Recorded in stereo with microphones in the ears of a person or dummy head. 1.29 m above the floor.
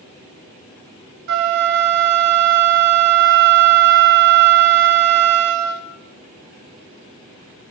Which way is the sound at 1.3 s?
65° right (ahead or behind).